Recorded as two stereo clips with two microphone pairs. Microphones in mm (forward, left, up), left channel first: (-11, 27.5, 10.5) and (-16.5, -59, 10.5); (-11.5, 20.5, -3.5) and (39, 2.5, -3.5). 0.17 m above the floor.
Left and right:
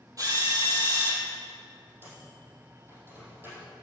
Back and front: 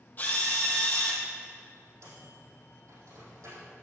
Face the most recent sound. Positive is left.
turn(degrees=-30)